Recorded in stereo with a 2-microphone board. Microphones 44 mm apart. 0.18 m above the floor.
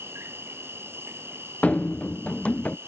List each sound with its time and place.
0.0 s an insect: 70° right (ahead or behind)
1.6 s running footsteps: 30° left (ahead or behind)